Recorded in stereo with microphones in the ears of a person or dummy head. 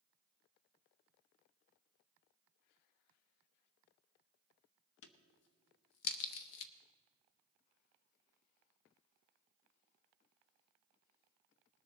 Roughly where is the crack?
Left.